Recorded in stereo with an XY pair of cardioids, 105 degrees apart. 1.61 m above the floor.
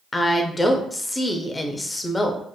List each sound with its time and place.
0.1 s a woman speaking: 20° left, 0.6 m